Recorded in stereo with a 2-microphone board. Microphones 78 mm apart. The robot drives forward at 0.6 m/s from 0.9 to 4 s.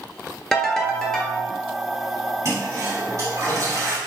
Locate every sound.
0.5 s a ringtone: 5° left (ahead or behind), 0.8 m
2.5 s a toilet flushing: 40° right (ahead or behind), 1.8 m; by 4.0 s 35° right (ahead or behind), 1.8 m